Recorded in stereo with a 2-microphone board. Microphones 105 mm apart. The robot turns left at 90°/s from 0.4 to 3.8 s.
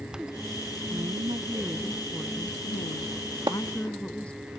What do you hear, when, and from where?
0.9 s a woman speaking: 90° right; by 4.5 s 10° left
3.5 s a splash: 45° right (ahead or behind); by 3.6 s 35° right (ahead or behind)